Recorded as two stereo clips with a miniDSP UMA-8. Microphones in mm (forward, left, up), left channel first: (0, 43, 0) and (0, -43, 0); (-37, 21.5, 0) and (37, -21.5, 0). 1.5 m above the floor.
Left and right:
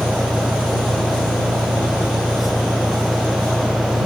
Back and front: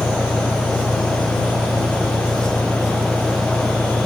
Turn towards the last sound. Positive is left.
turn(degrees=-20)